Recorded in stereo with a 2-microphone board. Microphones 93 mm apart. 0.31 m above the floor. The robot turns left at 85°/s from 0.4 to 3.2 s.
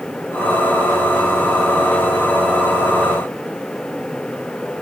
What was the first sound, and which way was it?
Only background noise.